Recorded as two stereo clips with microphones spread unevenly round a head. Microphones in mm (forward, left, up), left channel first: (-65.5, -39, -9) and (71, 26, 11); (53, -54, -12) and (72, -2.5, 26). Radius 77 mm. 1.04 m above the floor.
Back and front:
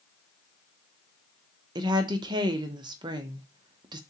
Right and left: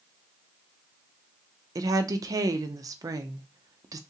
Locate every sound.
1.8 s a woman speaking: 55° left, 0.6 m